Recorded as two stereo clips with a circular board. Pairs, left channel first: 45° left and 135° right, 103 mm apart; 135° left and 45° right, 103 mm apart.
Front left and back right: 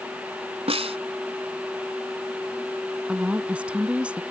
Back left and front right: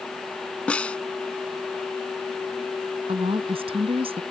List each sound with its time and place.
0.7 s a snare drum: 145° right
3.1 s a woman speaking: 55° right